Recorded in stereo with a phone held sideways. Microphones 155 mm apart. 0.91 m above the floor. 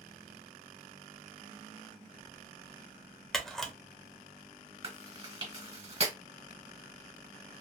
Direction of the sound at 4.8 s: 40° right (ahead or behind).